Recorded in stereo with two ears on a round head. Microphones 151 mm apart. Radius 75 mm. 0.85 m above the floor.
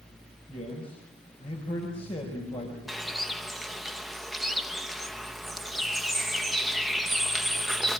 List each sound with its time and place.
0.5 s a man speaking: 35° left (ahead or behind), 5 m
2.9 s a bird: centre (ahead or behind), 0.8 m